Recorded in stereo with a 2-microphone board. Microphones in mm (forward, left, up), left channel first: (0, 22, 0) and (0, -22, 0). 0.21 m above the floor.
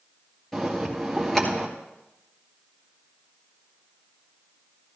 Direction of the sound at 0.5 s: 5° left (ahead or behind).